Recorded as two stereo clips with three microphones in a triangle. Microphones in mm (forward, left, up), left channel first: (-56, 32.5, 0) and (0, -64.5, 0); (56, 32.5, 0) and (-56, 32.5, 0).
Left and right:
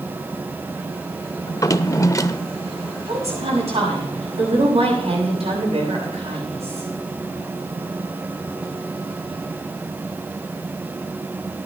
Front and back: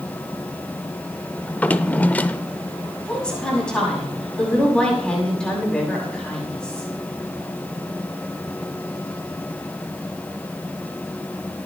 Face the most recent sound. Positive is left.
turn(degrees=-80)